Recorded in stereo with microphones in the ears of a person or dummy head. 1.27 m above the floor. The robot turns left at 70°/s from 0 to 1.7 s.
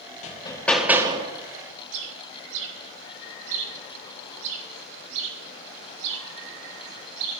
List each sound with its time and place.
0.2 s hammering: 40° left, 1.9 m; by 1.3 s 35° right, 1.9 m
1.9 s a bird: 80° right, 2 m